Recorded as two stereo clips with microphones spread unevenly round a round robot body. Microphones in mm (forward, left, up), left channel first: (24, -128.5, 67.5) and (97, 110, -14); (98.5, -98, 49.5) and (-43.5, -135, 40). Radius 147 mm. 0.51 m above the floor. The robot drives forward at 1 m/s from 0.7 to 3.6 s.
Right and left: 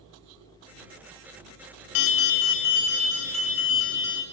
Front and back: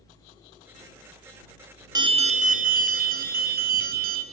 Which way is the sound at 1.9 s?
105° right.